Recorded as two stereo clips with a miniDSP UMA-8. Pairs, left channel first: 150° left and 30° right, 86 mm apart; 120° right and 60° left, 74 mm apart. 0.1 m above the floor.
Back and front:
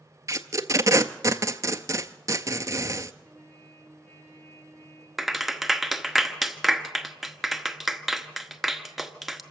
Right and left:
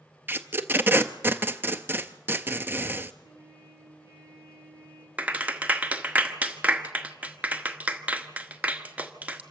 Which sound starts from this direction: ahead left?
A clap, at 5.2 s.